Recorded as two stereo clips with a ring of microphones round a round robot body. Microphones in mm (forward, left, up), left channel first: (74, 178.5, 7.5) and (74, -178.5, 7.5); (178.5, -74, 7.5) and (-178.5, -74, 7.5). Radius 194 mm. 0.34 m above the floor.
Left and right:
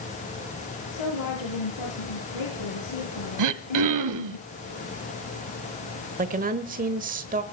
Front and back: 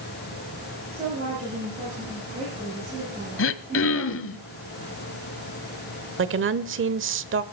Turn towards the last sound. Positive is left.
turn(degrees=-145)